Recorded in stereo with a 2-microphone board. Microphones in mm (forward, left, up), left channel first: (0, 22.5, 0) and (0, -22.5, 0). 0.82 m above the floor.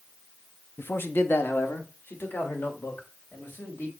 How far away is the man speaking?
About 0.7 m.